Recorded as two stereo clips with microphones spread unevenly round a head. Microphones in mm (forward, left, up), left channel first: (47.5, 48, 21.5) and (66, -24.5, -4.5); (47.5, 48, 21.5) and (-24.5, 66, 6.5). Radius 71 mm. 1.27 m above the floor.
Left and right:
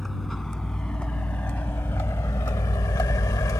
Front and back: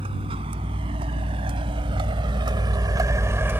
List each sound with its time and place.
0.0 s a vehicle: 170° right; by 3.6 s 95° left